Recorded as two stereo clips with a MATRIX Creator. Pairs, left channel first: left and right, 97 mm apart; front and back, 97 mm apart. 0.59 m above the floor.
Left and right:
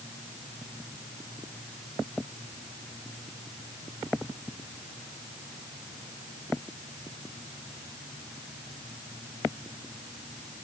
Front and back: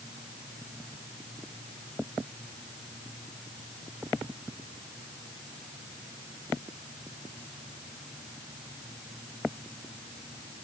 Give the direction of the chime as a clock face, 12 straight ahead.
No chime in this recording.